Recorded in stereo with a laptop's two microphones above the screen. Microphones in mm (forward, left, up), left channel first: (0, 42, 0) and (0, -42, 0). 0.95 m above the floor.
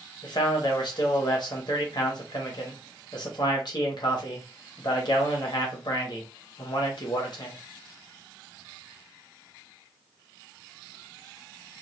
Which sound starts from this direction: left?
A man speaking, at 0.2 s.